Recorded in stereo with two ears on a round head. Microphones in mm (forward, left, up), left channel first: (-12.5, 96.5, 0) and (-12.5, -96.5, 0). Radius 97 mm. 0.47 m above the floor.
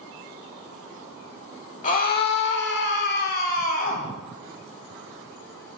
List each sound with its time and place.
1.8 s a scream: 35° left (ahead or behind), 1.2 m